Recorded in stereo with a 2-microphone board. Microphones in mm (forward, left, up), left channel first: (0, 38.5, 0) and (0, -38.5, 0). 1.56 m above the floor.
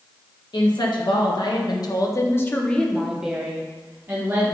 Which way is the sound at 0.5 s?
70° left (ahead or behind).